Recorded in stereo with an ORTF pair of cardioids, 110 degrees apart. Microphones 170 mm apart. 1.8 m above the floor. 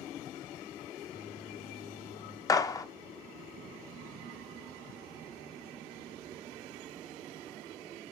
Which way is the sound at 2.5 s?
20° left.